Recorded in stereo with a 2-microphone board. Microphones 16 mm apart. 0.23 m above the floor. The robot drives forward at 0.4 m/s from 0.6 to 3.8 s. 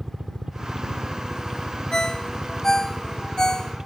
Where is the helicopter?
50° right (ahead or behind).